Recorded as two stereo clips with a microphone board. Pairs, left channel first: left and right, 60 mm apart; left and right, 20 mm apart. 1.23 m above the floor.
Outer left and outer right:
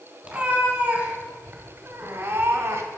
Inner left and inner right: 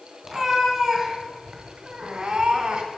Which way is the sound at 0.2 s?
15° right (ahead or behind).